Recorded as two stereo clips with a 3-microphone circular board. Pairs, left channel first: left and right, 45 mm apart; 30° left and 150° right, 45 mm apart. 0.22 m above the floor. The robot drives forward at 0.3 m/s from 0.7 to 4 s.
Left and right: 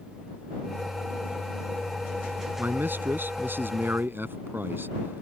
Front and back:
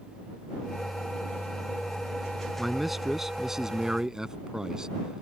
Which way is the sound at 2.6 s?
60° right.